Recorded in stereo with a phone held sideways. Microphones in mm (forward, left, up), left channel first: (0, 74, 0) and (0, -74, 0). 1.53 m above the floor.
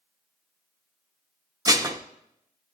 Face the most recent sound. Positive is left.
turn(degrees=-25)  # may be behind; listen again after turning